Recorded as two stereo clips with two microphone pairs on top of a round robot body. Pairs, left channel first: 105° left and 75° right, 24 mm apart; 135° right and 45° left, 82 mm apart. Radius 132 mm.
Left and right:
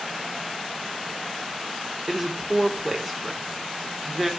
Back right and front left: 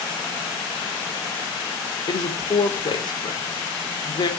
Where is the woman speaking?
165° right, 2.5 m.